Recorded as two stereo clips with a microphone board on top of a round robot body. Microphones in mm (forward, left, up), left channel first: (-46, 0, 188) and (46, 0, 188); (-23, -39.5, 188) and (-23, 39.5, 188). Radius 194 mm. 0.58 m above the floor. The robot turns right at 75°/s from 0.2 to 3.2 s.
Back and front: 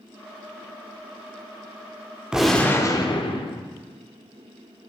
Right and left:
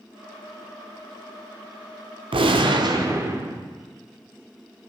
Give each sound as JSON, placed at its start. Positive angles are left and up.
{"t": 2.3, "sound": "a gunshot", "azimuth_deg": 80, "distance_m": 0.8}